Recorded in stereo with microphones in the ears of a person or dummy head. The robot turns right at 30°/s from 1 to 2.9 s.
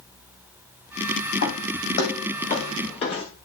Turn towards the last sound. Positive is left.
turn(degrees=30)  # may be behind; listen again after turning